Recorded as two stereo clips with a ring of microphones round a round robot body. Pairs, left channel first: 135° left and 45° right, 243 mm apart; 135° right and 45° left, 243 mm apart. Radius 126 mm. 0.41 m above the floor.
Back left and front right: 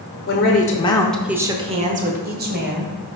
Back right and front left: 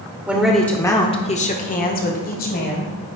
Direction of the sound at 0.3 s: 125° left.